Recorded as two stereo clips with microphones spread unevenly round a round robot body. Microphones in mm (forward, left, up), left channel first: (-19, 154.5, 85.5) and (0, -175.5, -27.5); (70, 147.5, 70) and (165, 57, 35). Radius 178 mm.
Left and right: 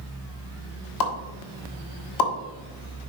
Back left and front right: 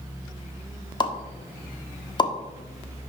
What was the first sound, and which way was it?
A pop, 75° left.